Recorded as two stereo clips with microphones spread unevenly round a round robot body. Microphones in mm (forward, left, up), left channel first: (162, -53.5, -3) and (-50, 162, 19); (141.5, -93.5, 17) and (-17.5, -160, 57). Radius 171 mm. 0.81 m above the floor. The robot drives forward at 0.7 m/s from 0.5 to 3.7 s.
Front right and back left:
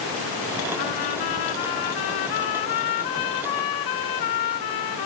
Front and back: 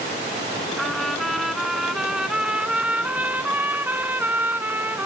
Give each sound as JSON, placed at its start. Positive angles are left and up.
{"t": 0.8, "sound": "a trumpet", "azimuth_deg": -65}